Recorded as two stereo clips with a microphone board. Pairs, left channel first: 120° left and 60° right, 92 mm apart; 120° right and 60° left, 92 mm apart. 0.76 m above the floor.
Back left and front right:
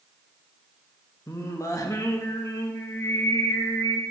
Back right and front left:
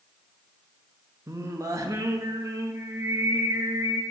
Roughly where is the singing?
Left.